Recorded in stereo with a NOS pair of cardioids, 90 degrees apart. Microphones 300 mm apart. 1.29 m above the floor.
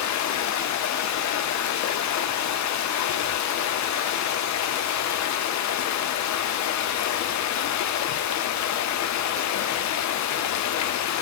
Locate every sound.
0.0 s running water: 65° left, 0.7 m